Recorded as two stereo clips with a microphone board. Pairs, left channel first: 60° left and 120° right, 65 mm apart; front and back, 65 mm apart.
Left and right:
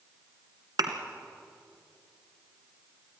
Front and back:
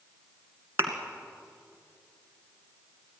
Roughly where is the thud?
Behind right.